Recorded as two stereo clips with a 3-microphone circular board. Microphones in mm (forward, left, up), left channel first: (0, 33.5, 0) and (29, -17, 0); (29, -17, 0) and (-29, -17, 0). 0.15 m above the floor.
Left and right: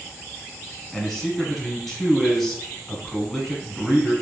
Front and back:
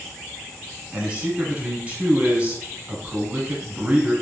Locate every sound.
0.9 s a man speaking: 160° right, 1.1 m